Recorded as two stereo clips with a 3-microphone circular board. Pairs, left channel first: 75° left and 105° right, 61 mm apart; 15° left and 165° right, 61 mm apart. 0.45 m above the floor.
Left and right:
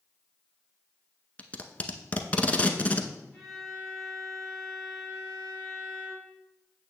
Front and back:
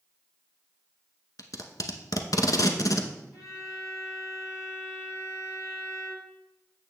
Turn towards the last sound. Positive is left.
turn(degrees=-15)